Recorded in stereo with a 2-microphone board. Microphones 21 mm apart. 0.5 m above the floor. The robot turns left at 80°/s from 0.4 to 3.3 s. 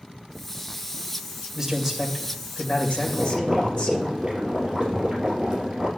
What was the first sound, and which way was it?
A man speaking, 160° right.